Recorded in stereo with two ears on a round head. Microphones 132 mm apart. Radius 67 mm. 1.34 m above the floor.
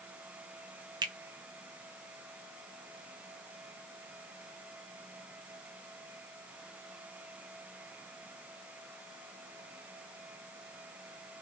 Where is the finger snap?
30° right (ahead or behind), 0.7 m.